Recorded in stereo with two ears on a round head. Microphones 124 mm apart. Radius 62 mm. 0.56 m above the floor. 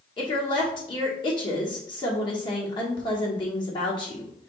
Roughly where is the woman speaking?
Left.